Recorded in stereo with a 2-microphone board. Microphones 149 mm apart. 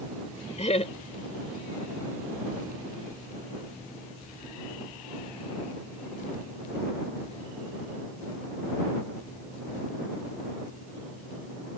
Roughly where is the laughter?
Left.